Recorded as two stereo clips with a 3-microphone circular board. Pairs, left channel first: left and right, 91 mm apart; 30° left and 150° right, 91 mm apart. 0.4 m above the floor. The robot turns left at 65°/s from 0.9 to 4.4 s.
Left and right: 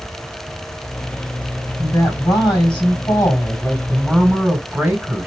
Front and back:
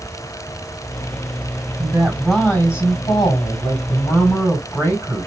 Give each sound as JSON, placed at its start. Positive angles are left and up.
{"t": 1.8, "sound": "a woman speaking", "azimuth_deg": 145, "distance_m": 2.0}